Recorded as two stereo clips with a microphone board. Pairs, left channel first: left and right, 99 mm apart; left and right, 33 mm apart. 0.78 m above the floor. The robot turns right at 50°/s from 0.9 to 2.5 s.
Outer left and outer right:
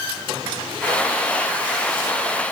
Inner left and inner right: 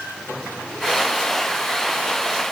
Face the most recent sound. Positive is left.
No sound to turn to.